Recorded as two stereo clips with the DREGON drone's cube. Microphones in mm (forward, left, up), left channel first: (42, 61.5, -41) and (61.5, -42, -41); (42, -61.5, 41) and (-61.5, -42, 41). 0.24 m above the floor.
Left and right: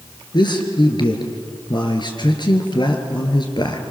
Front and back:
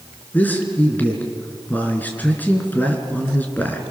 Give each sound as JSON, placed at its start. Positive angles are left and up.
{"t": 0.3, "sound": "a man speaking", "azimuth_deg": 60, "distance_m": 3.5}